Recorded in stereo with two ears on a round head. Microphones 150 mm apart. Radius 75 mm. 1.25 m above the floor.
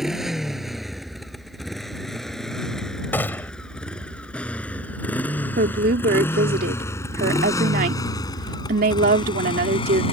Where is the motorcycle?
5° right (ahead or behind); by 10.1 s 35° left (ahead or behind).